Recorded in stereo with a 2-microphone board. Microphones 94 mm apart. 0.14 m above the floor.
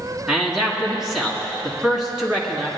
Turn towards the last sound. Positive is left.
turn(degrees=-5)  # may be behind; listen again after turning